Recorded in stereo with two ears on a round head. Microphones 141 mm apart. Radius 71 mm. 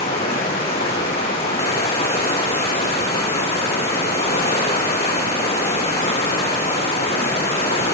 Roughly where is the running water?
Left.